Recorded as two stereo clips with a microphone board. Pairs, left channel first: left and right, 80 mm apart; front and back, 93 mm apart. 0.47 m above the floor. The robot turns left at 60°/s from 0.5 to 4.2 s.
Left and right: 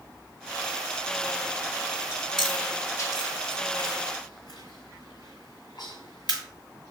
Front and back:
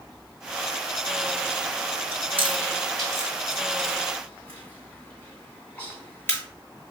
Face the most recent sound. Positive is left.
turn(degrees=65)